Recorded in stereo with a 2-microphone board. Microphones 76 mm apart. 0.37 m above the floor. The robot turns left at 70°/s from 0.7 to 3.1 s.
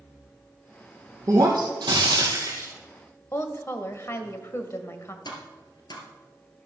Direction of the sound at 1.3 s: 45° right.